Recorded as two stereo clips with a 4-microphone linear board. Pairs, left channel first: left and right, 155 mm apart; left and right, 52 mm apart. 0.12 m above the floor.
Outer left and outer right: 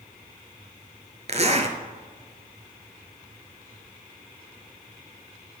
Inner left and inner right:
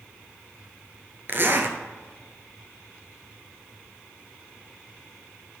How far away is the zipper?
About 1.3 m.